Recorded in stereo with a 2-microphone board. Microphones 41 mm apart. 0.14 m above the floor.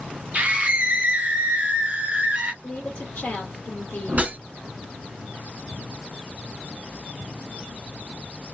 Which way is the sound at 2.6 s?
40° left (ahead or behind).